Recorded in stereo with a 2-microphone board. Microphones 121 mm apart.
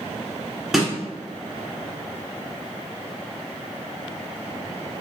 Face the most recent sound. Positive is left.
turn(degrees=0)  # may be behind; listen again after turning